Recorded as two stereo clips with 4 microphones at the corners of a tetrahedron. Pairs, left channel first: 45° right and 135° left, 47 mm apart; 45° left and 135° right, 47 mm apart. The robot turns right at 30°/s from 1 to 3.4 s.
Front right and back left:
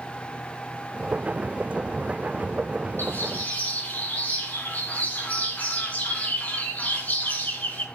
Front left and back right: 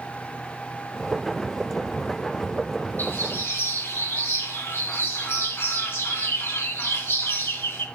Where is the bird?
Straight ahead, 4 m; by 7.8 s 10° left, 4 m.